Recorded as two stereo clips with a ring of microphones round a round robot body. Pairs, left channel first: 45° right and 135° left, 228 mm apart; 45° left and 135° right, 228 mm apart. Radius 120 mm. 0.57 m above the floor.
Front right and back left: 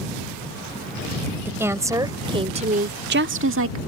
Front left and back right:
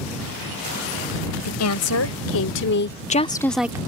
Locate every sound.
1.4 s a woman speaking: 55° left; by 3.8 s 150° left